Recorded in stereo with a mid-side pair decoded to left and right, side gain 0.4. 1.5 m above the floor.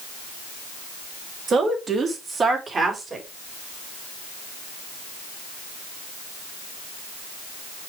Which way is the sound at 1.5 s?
60° right.